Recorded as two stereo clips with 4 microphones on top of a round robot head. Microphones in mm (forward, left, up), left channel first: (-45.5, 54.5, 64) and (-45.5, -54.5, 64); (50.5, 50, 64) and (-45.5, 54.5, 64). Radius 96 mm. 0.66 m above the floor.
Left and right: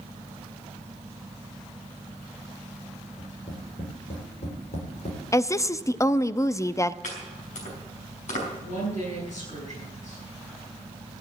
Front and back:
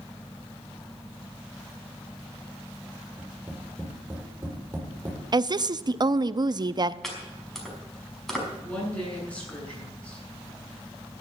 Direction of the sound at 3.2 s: 110° left.